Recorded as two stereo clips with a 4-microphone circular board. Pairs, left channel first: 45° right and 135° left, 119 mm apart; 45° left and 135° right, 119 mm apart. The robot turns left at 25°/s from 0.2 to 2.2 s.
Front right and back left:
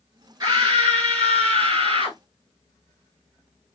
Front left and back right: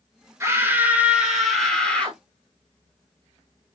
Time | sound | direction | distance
0.4 | a scream | 175° left | 1.5 m